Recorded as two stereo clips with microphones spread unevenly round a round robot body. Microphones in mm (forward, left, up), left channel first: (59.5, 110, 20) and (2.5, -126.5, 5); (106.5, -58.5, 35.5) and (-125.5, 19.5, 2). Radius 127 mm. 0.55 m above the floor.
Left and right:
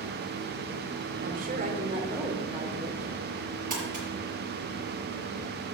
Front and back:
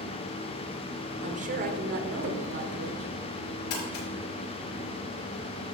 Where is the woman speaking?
150° right, 1.7 m; by 3.1 s 170° left, 1.9 m.